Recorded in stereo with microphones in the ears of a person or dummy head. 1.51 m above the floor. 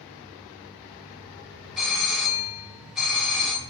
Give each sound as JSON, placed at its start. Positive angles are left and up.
{"t": 1.8, "sound": "a doorbell", "side_deg": -5, "distance_m": 1.5}